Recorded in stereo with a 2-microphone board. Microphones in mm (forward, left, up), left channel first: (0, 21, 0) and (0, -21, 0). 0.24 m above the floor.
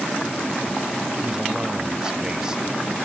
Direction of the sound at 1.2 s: 15° right (ahead or behind).